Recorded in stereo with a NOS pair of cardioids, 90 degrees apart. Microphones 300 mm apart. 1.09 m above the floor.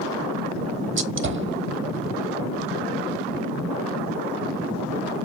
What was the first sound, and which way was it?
A gunshot, 40° right.